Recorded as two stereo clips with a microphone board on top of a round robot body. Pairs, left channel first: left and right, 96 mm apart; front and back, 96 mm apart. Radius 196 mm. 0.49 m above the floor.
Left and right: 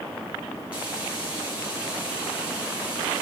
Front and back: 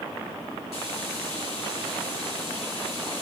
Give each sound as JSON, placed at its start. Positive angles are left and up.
{"t": 0.7, "sound": "frying", "azimuth_deg": -10, "distance_m": 6.0}